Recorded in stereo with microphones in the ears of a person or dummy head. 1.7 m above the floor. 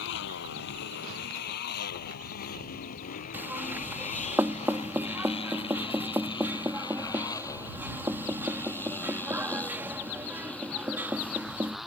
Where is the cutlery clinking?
I don't hear cutlery clinking.